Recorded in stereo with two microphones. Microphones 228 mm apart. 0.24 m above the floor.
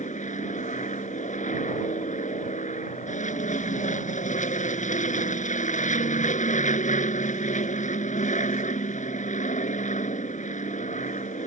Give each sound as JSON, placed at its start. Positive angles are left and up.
{"t": 0.0, "sound": "an aircraft", "side_deg": 30}